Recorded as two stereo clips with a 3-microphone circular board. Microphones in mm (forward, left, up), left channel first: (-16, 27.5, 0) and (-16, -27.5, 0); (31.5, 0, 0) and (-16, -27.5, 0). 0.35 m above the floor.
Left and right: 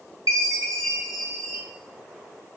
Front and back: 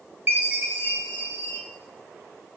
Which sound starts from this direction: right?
A chime, at 0.3 s.